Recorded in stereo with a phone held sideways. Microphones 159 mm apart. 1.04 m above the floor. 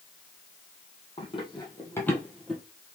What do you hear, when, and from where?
1.2 s running footsteps: 35° left (ahead or behind), 1.5 m; by 2.6 s 5° right (ahead or behind), 1.2 m